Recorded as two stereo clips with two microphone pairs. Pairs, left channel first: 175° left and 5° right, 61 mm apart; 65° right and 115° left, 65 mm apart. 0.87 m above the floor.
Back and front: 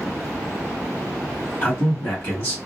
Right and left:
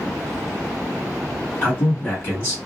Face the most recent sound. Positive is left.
turn(degrees=-125)